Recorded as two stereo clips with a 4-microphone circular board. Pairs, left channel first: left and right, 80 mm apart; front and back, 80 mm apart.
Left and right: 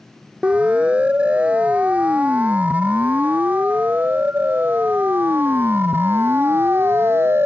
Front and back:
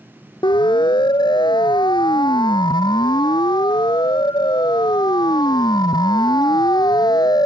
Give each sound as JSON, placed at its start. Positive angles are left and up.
{"t": 0.4, "sound": "a siren", "azimuth_deg": -15}